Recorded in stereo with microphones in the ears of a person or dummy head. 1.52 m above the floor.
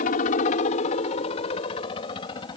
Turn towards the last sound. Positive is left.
turn(degrees=30)  # may be behind; listen again after turning